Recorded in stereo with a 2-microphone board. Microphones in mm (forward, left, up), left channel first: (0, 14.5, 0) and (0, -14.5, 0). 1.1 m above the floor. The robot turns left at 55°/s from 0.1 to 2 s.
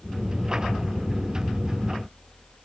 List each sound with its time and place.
Only background noise.